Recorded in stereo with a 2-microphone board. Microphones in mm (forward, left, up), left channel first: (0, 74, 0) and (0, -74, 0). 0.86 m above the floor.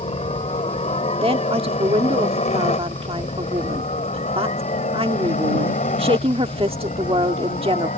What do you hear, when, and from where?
0.0 s a helicopter: 45° left (ahead or behind); by 8.0 s 60° left (ahead or behind)
1.2 s a woman speaking: 40° right (ahead or behind)